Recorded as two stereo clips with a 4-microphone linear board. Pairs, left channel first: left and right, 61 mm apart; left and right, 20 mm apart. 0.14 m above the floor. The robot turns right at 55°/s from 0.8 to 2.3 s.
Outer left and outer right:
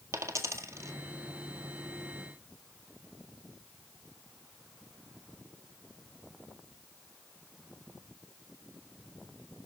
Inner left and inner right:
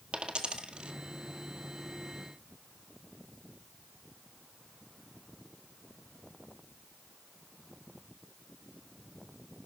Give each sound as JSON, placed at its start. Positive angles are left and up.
{"t": 0.1, "sound": "a dropped coin", "side_deg": -50, "distance_m": 1.7}